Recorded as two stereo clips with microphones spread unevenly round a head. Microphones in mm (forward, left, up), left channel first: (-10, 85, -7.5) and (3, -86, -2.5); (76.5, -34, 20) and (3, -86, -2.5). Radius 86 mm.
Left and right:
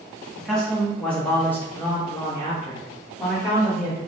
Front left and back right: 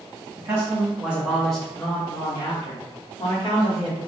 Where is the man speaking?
Straight behind, 1.1 m; by 4.0 s 25° left, 1.3 m.